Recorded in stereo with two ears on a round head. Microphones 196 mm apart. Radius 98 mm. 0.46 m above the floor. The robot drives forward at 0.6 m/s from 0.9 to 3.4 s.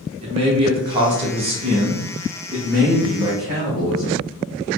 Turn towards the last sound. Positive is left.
turn(degrees=-15)  # may be behind; listen again after turning